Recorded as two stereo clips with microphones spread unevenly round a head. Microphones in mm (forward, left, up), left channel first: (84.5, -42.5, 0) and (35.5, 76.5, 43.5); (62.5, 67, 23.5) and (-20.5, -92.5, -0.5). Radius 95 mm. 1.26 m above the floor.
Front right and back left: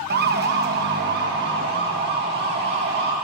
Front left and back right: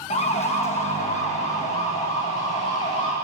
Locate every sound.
0.1 s a siren: 125° left, 2.5 m